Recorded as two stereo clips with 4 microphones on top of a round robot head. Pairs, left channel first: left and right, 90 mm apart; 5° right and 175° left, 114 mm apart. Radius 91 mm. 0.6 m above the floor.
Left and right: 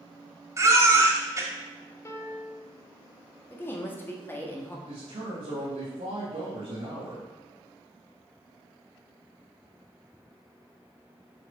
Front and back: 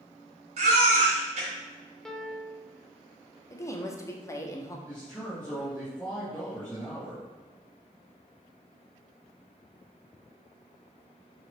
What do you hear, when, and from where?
0.6 s a baby crying: 145° right, 1.5 m
2.0 s a piano: 80° left, 0.9 m
3.5 s a woman speaking: 40° left, 1.2 m
4.9 s a man speaking: 85° right, 2.5 m